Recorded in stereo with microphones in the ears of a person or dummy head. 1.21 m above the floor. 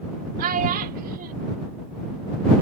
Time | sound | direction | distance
0.4 | a child speaking | 50° right (ahead or behind) | ?